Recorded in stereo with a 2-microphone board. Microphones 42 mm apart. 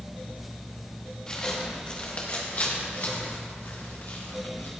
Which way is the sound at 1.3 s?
20° left (ahead or behind).